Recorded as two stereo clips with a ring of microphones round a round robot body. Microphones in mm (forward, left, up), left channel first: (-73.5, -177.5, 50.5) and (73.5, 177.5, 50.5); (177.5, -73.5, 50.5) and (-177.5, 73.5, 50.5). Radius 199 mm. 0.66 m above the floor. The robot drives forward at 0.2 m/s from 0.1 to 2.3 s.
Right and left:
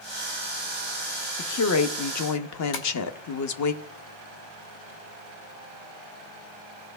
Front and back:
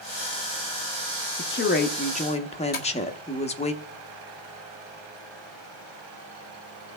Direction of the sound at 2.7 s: 90° right.